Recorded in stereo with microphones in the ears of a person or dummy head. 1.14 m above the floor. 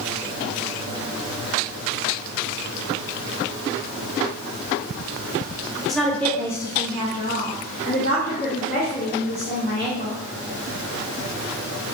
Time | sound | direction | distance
5.9 | a woman speaking | 5° left (ahead or behind) | 0.8 m